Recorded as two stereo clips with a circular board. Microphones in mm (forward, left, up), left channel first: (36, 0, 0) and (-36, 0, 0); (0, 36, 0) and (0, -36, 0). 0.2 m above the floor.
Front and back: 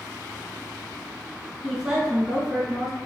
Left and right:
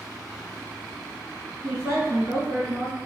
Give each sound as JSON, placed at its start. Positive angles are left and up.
{"t": 1.6, "sound": "a woman speaking", "azimuth_deg": -95, "distance_m": 1.6}